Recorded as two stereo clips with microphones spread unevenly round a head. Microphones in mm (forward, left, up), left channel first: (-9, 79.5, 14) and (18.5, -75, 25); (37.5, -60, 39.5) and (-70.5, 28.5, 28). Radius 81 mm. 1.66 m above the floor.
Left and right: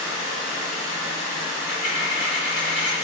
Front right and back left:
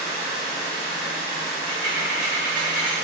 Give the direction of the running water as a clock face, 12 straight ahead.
12 o'clock.